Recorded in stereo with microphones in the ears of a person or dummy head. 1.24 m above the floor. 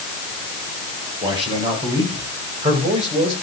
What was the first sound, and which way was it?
A man speaking, 35° right (ahead or behind).